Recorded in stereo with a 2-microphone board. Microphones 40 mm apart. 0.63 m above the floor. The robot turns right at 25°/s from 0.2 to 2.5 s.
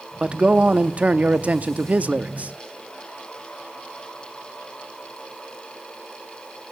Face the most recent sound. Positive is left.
turn(degrees=-80)